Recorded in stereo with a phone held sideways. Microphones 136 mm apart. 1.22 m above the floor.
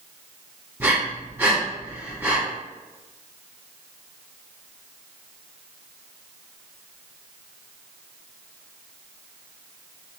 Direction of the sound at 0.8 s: 20° right (ahead or behind).